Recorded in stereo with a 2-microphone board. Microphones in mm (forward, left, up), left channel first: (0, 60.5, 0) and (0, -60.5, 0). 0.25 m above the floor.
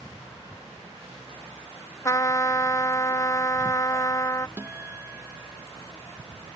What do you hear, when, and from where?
2.0 s a trumpet: 30° left (ahead or behind)
4.6 s a guitar: 20° right (ahead or behind)